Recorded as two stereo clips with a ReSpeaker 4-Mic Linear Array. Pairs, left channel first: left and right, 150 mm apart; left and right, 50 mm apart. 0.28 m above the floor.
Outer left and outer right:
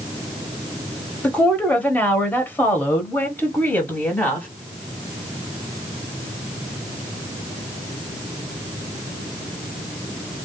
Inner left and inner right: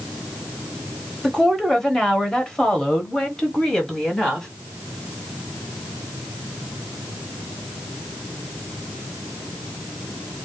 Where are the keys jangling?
I don't hear keys jangling.